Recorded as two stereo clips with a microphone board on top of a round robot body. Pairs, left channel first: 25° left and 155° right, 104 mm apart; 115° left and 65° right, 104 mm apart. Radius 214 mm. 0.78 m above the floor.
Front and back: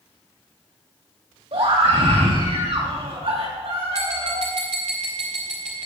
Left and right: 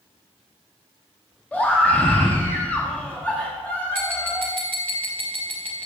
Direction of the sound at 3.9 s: 170° right.